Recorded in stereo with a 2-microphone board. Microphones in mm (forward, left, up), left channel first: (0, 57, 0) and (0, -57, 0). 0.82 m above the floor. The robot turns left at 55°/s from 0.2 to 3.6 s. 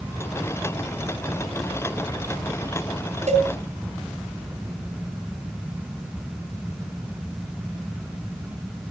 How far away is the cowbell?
About 3.5 m.